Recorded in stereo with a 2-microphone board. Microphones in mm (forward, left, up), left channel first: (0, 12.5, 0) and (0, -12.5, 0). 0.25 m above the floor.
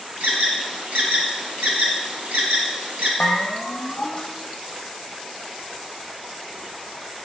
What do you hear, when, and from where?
0.2 s an alarm: 70° right (ahead or behind), 2 m
3.2 s a bell: 45° left (ahead or behind), 1.9 m